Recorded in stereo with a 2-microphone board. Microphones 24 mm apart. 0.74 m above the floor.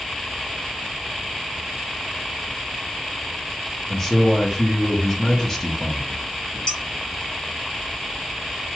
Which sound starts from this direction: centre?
A man speaking, at 3.9 s.